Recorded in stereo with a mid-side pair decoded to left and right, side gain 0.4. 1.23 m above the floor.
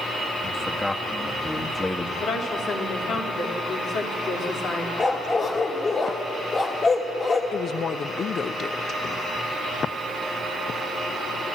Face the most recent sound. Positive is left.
turn(degrees=55)